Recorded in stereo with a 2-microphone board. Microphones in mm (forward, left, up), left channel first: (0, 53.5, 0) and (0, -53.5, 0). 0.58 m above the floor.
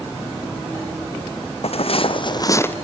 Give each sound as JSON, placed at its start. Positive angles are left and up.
{"t": 1.6, "sound": "footsteps", "side_deg": 70, "distance_m": 1.5}